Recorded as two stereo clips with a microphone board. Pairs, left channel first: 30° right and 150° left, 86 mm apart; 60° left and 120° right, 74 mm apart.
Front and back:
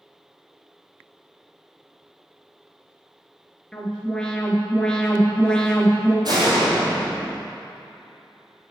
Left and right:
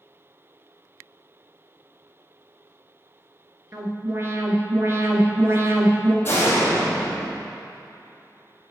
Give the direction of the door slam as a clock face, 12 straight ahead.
8 o'clock.